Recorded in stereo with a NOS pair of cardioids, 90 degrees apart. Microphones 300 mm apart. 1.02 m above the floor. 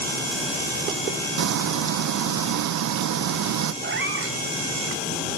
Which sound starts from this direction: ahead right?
A cat meowing, at 3.8 s.